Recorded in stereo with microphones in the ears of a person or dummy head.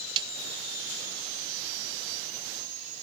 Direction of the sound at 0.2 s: 25° right (ahead or behind).